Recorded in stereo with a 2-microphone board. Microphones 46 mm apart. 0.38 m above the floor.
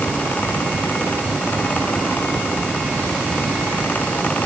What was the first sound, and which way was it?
Only background noise.